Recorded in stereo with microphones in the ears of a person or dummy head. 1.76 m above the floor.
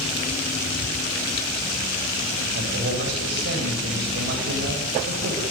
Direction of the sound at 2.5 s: 65° right (ahead or behind).